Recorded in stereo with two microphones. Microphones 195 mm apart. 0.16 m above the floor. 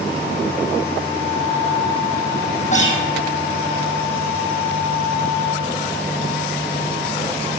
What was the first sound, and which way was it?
A guitar, 40° left (ahead or behind).